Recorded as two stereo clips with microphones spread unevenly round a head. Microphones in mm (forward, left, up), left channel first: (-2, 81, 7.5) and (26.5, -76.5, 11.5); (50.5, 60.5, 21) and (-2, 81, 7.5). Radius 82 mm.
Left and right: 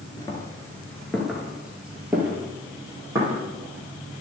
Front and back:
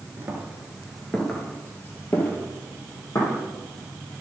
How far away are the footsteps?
About 1.7 m.